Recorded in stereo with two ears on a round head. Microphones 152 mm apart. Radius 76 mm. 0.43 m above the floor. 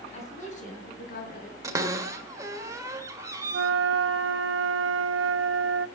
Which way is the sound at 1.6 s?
20° right (ahead or behind).